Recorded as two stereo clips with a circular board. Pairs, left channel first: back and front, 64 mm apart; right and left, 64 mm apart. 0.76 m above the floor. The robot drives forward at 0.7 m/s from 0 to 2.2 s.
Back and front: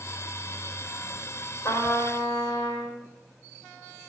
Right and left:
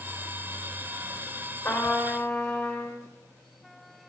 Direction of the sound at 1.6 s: 145° right.